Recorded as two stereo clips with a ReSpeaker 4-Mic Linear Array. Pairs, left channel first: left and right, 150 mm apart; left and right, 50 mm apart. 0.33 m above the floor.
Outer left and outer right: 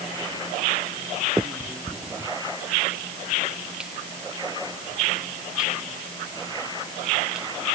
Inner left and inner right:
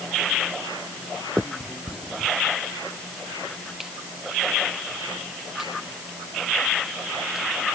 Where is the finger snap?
5° right (ahead or behind).